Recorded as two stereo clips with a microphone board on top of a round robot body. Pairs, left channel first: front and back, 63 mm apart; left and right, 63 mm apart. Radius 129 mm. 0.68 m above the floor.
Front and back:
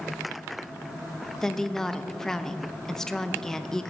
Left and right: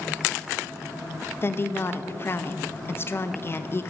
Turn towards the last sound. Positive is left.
turn(degrees=80)